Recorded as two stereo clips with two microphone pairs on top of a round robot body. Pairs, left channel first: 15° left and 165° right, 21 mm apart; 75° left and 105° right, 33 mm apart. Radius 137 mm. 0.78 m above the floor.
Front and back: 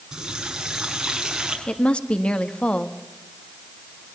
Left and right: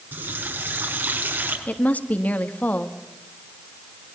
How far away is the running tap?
About 6.5 m.